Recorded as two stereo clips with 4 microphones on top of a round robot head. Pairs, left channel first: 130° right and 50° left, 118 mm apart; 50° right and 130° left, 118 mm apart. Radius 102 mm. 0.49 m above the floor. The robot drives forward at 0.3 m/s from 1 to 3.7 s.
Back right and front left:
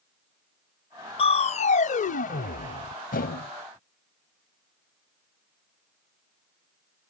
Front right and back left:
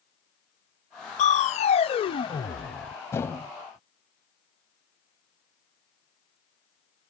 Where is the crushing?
85° right; by 3.5 s 130° right.